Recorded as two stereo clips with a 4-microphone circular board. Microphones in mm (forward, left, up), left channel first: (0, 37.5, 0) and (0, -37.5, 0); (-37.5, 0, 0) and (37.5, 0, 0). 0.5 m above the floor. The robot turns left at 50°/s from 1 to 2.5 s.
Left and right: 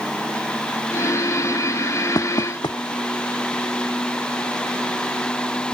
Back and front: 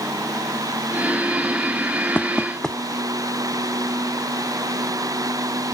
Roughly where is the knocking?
Behind left.